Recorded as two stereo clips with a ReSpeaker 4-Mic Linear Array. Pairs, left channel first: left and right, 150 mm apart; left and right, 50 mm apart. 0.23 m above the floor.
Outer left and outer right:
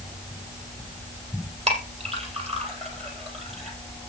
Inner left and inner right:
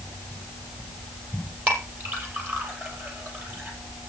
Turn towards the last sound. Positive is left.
turn(degrees=-45)  # may be behind; listen again after turning